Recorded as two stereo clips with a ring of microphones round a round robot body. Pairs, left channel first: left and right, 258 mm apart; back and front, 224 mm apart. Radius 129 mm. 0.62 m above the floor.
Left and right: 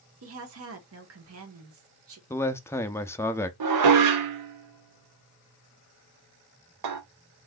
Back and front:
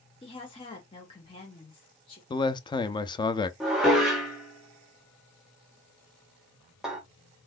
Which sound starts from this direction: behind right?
A woman speaking, at 0.2 s.